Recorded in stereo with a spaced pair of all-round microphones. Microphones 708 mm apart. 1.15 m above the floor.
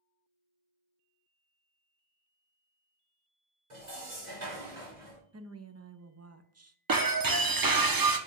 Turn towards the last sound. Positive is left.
turn(degrees=-30)  # may be behind; listen again after turning